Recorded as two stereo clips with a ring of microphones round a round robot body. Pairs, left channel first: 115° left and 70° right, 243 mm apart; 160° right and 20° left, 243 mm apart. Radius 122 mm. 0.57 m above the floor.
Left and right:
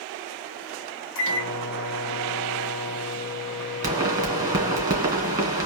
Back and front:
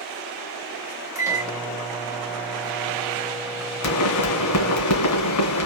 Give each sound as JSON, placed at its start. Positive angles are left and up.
{"t": 1.1, "sound": "a microwave", "azimuth_deg": 100, "distance_m": 1.8}
{"t": 3.8, "sound": "a pop", "azimuth_deg": -140, "distance_m": 2.5}